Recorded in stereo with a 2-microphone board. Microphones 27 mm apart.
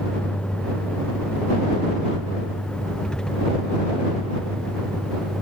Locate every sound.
0.0 s a vehicle: 40° left (ahead or behind); by 5.4 s 25° left (ahead or behind)